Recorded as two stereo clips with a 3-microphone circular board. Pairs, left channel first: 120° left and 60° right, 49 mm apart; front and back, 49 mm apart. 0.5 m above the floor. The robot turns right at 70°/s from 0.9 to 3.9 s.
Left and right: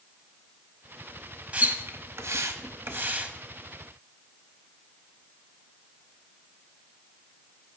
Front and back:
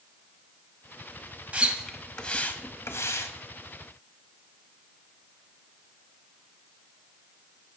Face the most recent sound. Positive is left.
turn(degrees=45)